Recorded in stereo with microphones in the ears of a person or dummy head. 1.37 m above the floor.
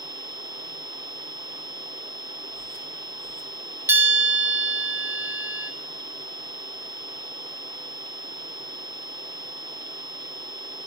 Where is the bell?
10° right (ahead or behind), 1.0 m.